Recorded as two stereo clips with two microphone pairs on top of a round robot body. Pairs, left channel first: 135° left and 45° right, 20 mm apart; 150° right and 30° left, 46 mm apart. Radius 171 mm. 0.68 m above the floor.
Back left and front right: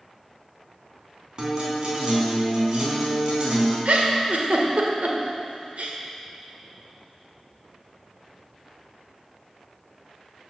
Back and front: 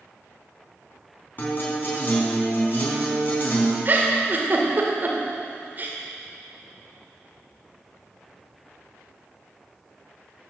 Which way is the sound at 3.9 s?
20° right.